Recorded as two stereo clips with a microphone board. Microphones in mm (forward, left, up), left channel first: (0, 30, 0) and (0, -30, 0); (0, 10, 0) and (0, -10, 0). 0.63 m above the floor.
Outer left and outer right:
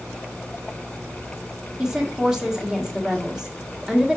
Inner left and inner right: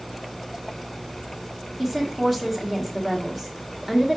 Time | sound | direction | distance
1.8 | a woman speaking | 10° right (ahead or behind) | 1.3 m